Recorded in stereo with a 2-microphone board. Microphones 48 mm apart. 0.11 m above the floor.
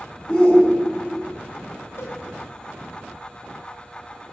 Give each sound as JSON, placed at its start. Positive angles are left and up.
{"t": 0.3, "sound": "a shout", "side_deg": 15, "distance_m": 10.0}
{"t": 2.0, "sound": "a cowbell", "side_deg": 75, "distance_m": 8.5}